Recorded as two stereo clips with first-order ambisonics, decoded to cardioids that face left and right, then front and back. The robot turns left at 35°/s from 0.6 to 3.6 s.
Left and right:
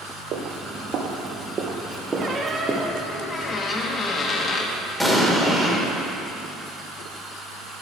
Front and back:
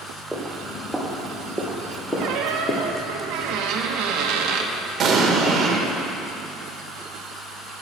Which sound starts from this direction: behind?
An explosion, at 5.0 s.